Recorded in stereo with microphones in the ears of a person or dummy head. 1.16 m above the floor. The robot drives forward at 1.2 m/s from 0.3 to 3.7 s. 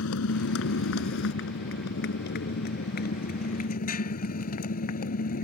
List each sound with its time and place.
0.0 s a motorcycle: 70° left (ahead or behind); by 5.4 s 45° left (ahead or behind)